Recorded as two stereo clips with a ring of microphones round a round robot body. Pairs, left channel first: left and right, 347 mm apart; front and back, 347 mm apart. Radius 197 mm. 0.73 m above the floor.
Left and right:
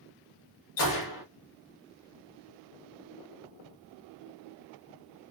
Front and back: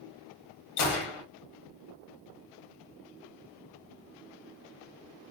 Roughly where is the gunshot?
Ahead left.